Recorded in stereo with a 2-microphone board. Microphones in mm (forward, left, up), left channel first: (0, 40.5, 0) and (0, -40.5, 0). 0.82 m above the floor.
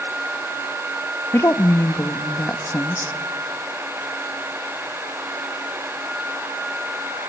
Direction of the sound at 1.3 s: 35° left (ahead or behind).